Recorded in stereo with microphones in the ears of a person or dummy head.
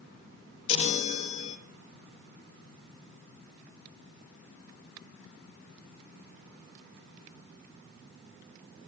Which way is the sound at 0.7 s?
40° left (ahead or behind).